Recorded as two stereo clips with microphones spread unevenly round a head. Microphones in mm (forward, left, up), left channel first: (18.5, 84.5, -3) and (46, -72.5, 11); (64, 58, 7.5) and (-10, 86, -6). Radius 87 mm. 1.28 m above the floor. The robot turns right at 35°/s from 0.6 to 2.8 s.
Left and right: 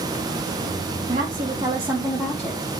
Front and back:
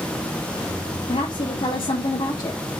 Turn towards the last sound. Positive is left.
turn(degrees=25)